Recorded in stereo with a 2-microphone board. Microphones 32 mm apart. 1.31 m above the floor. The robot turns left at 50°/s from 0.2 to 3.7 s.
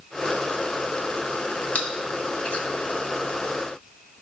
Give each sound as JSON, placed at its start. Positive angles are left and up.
{"t": 1.8, "sound": "chewing", "side_deg": 45, "distance_m": 1.7}